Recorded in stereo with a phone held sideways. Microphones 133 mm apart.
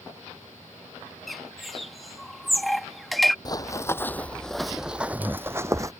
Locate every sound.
1.3 s a bird: centre (ahead or behind)
3.5 s running footsteps: 30° left (ahead or behind); by 5.9 s 25° right (ahead or behind)